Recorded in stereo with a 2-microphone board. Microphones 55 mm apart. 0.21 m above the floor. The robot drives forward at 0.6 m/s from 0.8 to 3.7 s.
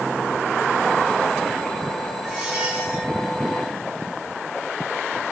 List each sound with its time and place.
2.2 s a squeak: 15° right (ahead or behind), 1.2 m; by 3.1 s 20° right (ahead or behind), 0.8 m